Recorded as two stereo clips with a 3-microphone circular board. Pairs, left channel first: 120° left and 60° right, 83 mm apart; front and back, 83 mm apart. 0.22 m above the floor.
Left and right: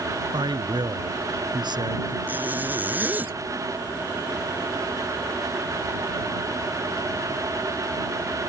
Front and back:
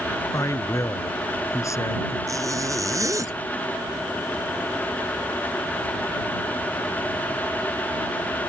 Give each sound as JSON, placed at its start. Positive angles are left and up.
{"t": 0.3, "sound": "a man speaking", "azimuth_deg": -45}
{"t": 2.3, "sound": "a zipper", "azimuth_deg": -130}